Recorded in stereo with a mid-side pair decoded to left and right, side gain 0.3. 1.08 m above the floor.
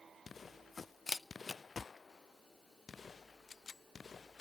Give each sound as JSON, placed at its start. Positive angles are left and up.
{"t": 1.1, "sound": "a camera shutter", "azimuth_deg": 40, "distance_m": 0.6}